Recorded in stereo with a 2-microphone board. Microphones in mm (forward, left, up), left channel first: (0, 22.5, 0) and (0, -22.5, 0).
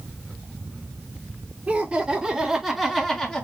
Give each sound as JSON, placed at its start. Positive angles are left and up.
{"t": 1.7, "sound": "laughter", "side_deg": -25, "distance_m": 3.0}